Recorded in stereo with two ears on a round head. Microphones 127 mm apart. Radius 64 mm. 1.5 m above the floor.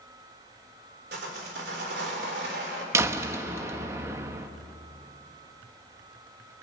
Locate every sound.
1.1 s sawing: 85° right, 4 m
2.9 s a door slam: 20° right (ahead or behind), 1.1 m